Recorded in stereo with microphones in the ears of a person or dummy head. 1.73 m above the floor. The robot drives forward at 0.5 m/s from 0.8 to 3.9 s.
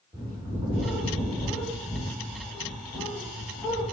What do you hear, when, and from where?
0.1 s a bird: 20° right (ahead or behind), 2 m; by 3.8 s 10° right (ahead or behind), 3.5 m